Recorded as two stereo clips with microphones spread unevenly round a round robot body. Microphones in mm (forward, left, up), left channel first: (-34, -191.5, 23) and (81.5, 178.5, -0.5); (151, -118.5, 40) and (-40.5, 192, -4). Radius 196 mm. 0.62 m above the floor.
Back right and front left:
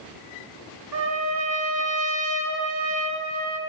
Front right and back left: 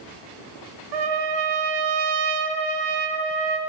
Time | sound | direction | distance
0.9 | a trumpet | 125° left | 1.9 m